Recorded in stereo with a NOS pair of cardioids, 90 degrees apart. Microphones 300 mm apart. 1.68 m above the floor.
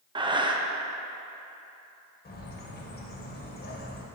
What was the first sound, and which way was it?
Breathing, 15° right.